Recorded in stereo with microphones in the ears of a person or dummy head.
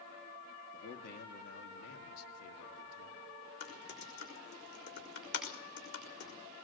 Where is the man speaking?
50° left (ahead or behind), 2.5 m; by 3.2 s 80° left, 3 m.